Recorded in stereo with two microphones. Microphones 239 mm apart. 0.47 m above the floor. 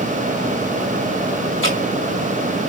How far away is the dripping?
About 4 m.